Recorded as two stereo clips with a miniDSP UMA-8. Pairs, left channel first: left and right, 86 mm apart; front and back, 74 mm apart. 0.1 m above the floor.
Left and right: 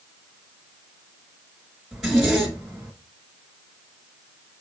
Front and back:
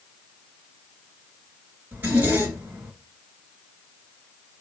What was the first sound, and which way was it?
A zipper, 165° right.